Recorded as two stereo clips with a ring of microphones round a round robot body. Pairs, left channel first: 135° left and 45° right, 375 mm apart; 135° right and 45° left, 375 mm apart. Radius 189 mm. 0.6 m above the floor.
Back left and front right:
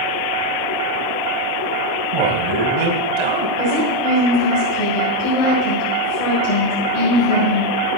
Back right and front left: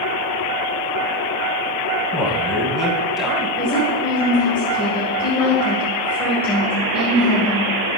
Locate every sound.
2.1 s a man speaking: 45° right, 4 m
3.6 s a woman speaking: 140° left, 8.5 m